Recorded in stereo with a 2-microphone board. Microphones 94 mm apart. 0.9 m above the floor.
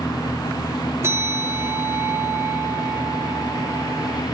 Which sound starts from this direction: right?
A bell, at 1.0 s.